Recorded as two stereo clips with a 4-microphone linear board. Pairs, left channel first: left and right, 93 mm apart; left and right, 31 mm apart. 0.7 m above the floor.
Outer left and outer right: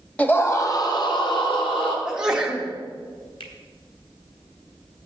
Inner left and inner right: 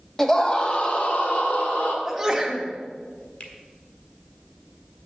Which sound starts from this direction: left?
A finger snap, at 3.4 s.